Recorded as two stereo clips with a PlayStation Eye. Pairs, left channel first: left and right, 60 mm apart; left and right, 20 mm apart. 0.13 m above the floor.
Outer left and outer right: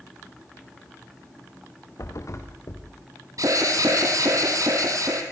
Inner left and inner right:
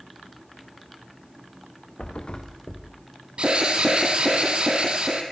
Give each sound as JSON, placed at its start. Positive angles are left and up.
{"t": 2.0, "sound": "a thud", "side_deg": 55, "distance_m": 3.5}
{"t": 3.4, "sound": "an alarm", "side_deg": -65, "distance_m": 3.0}